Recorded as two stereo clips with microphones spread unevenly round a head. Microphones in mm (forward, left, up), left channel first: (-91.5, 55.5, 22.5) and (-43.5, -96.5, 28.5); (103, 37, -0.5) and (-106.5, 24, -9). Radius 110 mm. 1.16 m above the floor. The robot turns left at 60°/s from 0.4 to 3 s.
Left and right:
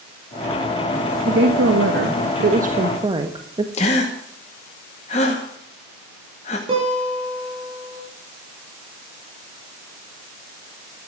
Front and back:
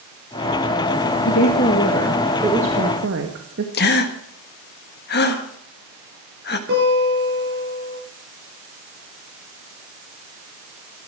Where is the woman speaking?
30° right, 1.4 m; by 3.6 s 135° right, 1.4 m.